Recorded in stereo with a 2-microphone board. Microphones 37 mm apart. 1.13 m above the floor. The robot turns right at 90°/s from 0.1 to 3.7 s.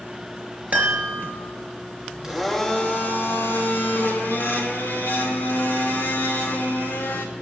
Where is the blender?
20° right, 2.5 m; by 7.3 s 110° left, 2.5 m.